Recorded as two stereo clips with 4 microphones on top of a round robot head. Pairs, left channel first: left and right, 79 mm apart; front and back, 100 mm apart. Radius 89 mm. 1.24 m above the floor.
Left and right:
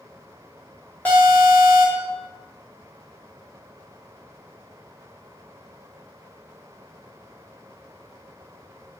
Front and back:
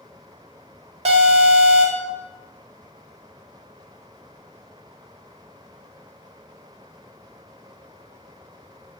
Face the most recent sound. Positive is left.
turn(degrees=165)